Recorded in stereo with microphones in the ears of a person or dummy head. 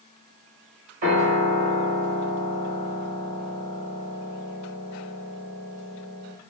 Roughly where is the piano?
Right.